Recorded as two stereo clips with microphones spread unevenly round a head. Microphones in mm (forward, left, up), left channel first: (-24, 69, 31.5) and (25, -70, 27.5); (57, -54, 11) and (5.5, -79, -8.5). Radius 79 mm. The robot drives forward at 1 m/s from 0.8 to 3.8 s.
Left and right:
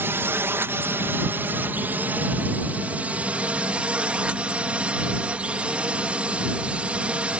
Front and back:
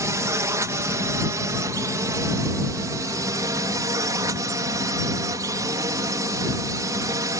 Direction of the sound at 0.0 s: 145° right.